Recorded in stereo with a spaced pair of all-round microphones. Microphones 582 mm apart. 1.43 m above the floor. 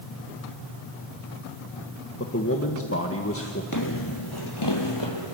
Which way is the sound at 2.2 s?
25° left (ahead or behind).